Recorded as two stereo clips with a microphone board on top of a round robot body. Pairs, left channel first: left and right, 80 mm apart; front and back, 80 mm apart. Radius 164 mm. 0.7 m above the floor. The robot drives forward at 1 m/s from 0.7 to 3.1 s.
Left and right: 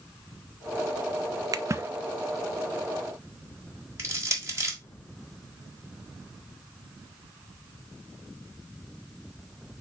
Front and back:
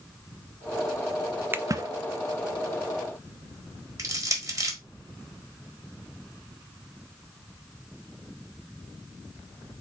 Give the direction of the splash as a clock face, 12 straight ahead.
4 o'clock.